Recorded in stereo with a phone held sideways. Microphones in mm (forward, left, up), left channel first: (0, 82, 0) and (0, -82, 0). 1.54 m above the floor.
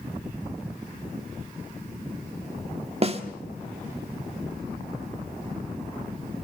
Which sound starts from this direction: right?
A snare drum, at 3.0 s.